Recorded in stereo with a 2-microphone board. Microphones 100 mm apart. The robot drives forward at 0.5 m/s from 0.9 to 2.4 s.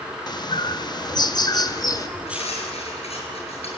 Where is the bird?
45° left (ahead or behind), 1.3 m; by 2.1 s 35° left (ahead or behind), 1.5 m.